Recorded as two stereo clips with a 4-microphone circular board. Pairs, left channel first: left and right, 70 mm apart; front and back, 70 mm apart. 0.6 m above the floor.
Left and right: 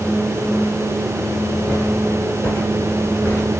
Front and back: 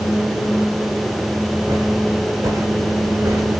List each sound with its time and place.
1.7 s footsteps: 160° left, 5 m; by 3.6 s 145° left, 4.5 m